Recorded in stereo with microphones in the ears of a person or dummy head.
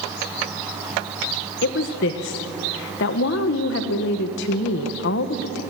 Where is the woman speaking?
65° left (ahead or behind), 1.3 m.